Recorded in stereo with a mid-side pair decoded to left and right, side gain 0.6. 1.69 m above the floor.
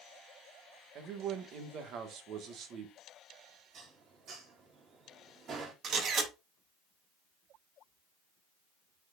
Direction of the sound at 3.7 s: 45° right.